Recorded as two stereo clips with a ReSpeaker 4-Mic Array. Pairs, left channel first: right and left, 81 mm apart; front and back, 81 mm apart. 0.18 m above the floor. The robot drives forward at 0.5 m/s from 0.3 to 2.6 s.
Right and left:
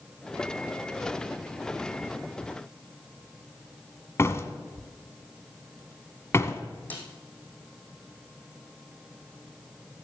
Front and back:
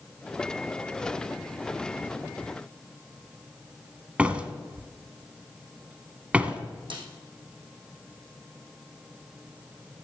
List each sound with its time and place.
4.2 s a door slam: 115° right, 1.3 m
6.9 s a snare drum: 160° right, 4 m